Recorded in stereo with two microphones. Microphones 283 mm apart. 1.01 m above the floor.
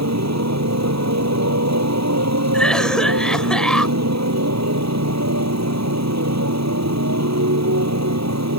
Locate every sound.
0.0 s a motorcycle: 70° right (ahead or behind)
2.5 s a cough: 5° left (ahead or behind)